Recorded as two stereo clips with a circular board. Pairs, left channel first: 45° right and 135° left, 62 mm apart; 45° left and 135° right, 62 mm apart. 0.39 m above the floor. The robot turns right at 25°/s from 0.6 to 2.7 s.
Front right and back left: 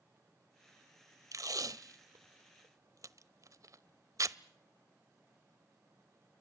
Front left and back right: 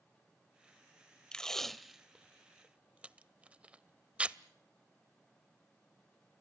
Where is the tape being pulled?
120° left, 0.7 m; by 4.4 s 155° left, 0.7 m.